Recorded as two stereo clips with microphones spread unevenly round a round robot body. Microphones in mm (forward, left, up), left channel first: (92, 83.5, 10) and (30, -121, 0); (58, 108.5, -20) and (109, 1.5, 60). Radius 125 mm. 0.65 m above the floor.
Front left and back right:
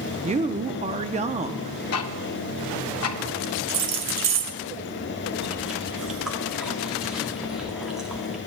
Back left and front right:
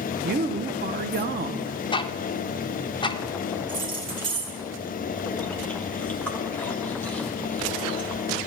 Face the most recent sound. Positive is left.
turn(degrees=165)